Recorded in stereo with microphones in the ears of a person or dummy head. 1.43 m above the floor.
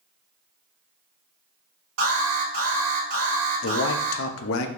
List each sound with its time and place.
2.0 s an alarm: 80° right, 1.8 m
3.6 s a man speaking: 70° left (ahead or behind), 0.7 m